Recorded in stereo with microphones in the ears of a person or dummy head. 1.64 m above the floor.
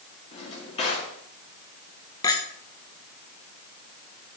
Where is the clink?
20° left (ahead or behind), 1.1 m.